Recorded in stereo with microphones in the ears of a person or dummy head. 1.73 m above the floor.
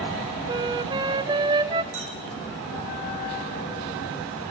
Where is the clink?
60° right (ahead or behind), 6.5 m.